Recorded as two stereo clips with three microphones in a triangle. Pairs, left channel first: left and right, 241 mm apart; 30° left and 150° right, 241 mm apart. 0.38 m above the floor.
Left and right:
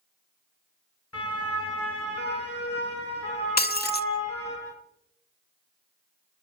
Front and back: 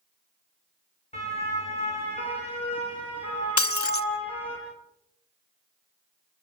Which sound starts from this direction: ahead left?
Breaking glass, at 3.6 s.